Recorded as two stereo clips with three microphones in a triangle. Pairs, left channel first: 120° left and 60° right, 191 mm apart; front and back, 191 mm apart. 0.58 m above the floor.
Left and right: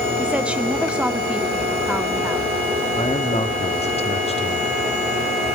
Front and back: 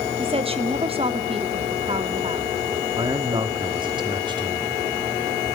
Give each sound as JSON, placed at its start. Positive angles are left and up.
{"t": 0.2, "sound": "a woman speaking", "azimuth_deg": -140, "distance_m": 1.0}
{"t": 3.0, "sound": "a man speaking", "azimuth_deg": 135, "distance_m": 1.1}